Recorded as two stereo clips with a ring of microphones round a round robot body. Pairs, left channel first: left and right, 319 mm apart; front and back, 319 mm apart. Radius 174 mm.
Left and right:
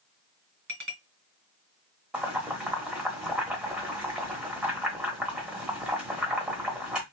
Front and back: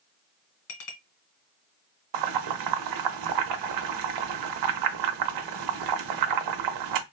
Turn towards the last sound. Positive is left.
turn(degrees=-175)